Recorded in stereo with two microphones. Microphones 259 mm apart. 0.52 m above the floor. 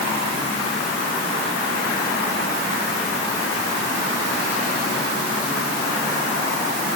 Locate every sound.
Only background noise.